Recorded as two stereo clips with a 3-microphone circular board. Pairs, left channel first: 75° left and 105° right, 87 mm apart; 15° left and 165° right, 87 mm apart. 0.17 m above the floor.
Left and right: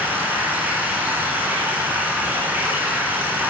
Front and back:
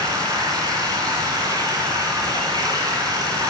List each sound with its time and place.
0.0 s running water: 170° right, 1.4 m